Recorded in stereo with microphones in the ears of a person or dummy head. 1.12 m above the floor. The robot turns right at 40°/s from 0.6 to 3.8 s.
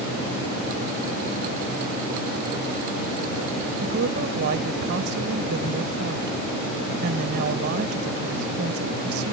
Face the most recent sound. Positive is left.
turn(degrees=-60)  # may be behind; listen again after turning